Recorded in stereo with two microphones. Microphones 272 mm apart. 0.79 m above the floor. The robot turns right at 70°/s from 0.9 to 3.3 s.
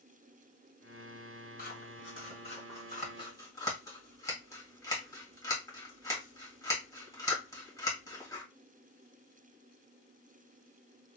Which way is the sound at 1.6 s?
35° left (ahead or behind).